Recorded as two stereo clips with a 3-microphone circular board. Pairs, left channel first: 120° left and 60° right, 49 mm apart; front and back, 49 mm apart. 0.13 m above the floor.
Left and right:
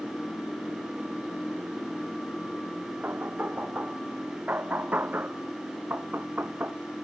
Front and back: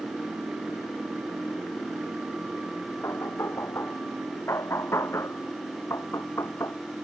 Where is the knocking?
15° right.